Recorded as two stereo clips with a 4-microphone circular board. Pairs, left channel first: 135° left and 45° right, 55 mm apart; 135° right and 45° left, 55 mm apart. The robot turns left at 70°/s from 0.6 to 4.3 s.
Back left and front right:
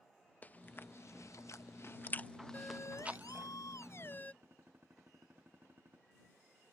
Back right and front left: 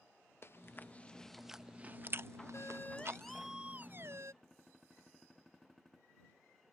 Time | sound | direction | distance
0.4 | chewing | 170° right | ?
2.5 | a siren | 170° right | ?
4.4 | a gunshot | 50° right | ?